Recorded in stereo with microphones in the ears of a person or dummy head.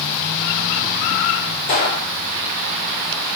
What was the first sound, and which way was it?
A gunshot, 40° left (ahead or behind).